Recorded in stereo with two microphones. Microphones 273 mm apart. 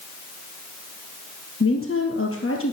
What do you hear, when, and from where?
1.6 s a woman speaking: 50° left (ahead or behind), 2 m